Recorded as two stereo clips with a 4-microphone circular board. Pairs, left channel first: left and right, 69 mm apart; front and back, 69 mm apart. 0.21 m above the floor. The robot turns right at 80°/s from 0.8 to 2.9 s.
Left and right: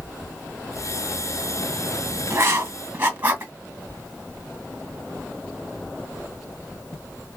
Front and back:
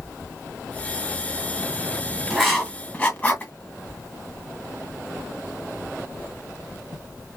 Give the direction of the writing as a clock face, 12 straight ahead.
3 o'clock.